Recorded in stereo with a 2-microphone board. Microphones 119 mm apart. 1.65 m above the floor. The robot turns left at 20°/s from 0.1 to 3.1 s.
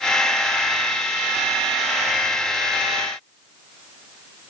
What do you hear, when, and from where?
Only background noise.